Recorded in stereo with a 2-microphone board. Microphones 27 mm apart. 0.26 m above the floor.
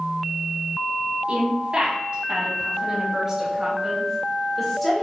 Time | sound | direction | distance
1.3 | a woman speaking | 45° right (ahead or behind) | 2.5 m